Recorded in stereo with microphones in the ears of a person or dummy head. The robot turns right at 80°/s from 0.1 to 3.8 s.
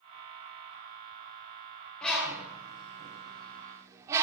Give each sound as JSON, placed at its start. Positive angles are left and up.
{"t": 2.0, "sound": "a bird", "side_deg": 5, "distance_m": 0.8}